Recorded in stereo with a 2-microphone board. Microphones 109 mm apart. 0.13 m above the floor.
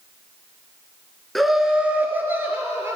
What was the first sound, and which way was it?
Laughter, centre (ahead or behind).